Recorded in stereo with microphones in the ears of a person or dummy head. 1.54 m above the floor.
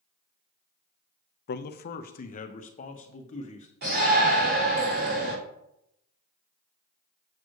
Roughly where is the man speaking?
Left.